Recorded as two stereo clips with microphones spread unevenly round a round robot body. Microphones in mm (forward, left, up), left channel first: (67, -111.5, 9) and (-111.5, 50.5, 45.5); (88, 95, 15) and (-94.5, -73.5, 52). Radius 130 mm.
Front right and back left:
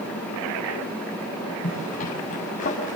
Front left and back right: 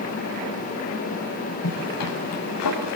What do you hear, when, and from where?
1.6 s a zipper: 20° left, 7 m